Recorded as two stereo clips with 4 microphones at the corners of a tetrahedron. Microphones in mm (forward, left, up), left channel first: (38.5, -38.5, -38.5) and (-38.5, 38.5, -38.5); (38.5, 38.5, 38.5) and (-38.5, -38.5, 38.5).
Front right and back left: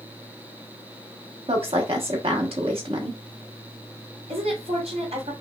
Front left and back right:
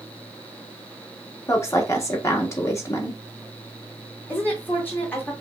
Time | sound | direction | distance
1.5 | a woman speaking | 105° left | 1.1 m
4.3 | a woman speaking | 115° left | 2 m